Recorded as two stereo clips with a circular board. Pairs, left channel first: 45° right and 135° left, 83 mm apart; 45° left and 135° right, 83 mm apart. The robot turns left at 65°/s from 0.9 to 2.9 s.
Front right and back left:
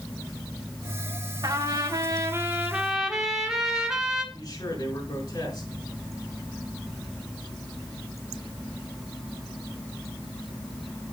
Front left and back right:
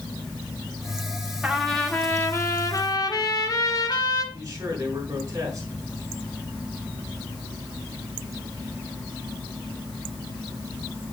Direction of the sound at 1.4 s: 150° left.